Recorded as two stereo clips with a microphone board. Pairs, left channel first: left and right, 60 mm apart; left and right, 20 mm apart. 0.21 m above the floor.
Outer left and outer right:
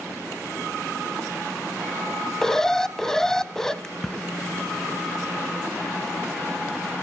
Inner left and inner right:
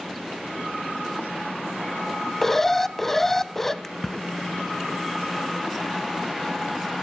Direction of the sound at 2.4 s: 10° left (ahead or behind).